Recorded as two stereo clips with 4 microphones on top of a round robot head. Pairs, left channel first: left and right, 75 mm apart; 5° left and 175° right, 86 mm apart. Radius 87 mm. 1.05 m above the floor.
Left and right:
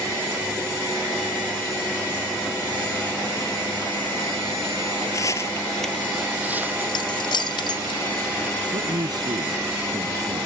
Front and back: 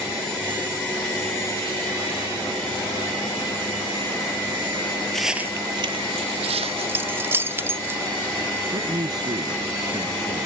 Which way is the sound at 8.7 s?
130° right.